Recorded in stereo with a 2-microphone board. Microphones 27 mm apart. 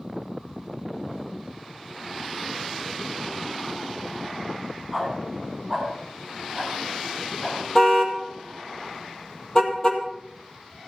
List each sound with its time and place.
4.9 s a dog barking: centre (ahead or behind), 8 m; by 7.6 s 5° left (ahead or behind), 10 m
7.8 s a car horn: 25° left (ahead or behind), 2 m